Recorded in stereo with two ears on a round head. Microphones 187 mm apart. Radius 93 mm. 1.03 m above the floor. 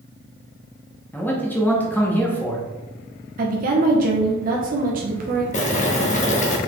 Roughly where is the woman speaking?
Right.